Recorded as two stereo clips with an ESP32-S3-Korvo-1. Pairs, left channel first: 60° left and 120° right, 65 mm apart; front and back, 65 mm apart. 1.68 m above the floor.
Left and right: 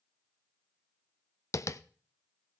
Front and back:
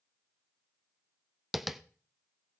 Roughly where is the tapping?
Left.